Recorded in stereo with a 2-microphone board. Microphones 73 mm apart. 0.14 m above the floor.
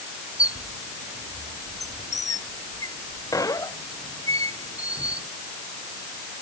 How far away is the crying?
I don't hear crying.